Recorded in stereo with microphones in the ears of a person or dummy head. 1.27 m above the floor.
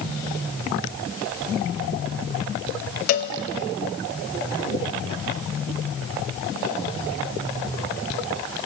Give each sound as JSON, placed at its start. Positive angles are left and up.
{"t": 3.1, "sound": "a cowbell", "side_deg": 40, "distance_m": 0.5}